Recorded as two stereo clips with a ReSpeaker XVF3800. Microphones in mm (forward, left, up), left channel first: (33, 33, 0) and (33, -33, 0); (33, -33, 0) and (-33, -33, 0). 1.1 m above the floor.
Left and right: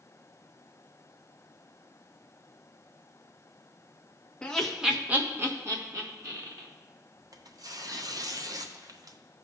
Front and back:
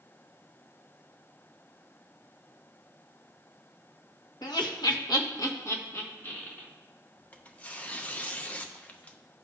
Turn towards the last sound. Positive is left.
turn(degrees=-70)